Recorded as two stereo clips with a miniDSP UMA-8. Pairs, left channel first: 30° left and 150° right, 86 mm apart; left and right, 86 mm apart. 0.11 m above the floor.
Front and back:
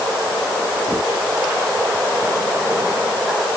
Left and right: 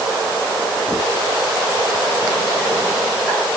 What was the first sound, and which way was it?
Only background noise.